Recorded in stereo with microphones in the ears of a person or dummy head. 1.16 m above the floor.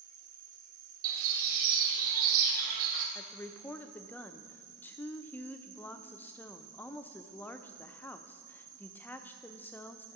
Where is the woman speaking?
5° left (ahead or behind), 0.6 m.